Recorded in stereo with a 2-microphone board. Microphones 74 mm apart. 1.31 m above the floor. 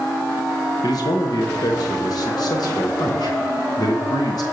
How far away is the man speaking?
About 1.1 m.